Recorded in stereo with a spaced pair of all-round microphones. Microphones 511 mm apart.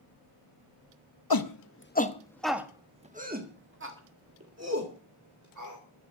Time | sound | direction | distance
1.3 | a shout | 45° left (ahead or behind) | 0.9 m